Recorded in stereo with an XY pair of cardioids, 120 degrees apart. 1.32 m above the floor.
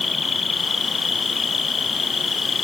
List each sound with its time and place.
0.0 s an insect: 25° left